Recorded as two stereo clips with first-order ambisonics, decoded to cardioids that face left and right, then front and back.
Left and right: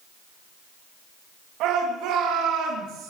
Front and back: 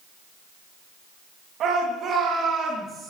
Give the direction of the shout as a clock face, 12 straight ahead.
4 o'clock.